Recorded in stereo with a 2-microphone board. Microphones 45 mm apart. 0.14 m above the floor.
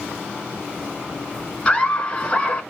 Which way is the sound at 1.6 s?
25° left (ahead or behind).